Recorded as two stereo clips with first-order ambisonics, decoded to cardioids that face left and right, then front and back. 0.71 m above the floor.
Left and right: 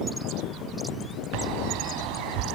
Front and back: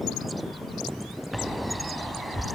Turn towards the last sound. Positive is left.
turn(degrees=-95)